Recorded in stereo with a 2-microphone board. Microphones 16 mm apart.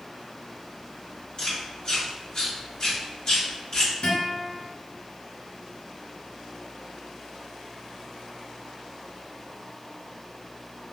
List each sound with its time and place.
1.4 s chewing: 45° left (ahead or behind), 1.7 m
4.0 s a guitar: 70° left (ahead or behind), 1.7 m